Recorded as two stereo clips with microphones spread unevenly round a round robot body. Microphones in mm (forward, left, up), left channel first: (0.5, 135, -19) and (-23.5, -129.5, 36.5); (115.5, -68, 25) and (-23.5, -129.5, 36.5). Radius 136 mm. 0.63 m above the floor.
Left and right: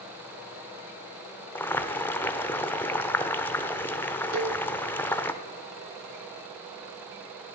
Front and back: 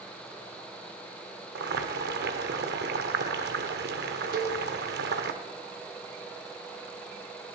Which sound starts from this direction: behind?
Boiling, at 1.6 s.